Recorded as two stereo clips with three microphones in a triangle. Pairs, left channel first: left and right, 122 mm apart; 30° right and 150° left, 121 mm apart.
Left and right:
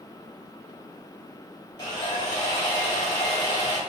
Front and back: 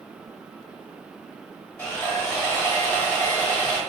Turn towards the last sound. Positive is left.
turn(degrees=40)